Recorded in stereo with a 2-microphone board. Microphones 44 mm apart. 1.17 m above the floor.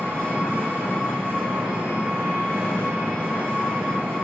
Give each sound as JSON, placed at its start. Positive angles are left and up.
{"t": 0.0, "sound": "an engine running", "side_deg": -40, "distance_m": 1.4}